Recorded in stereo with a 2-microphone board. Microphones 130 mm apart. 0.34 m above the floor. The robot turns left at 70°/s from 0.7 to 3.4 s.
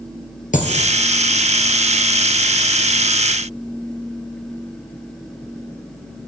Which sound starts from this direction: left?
A dropped coin, at 0.5 s.